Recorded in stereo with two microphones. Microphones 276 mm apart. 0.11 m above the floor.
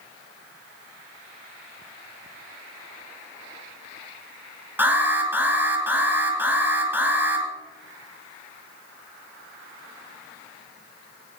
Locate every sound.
4.8 s an alarm: 10° right (ahead or behind), 2.5 m